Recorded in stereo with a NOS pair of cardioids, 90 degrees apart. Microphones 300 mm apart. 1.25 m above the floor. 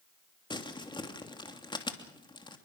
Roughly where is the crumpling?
Ahead.